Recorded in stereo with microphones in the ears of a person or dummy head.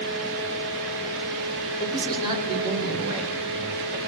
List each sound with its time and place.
1.8 s a man speaking: 20° right (ahead or behind), 6.5 m